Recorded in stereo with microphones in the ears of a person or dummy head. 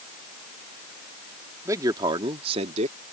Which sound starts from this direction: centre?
A man speaking, at 1.6 s.